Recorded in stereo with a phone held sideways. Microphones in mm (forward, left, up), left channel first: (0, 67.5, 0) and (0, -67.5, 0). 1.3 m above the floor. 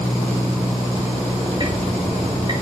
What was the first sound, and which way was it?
Ticking, 35° right (ahead or behind).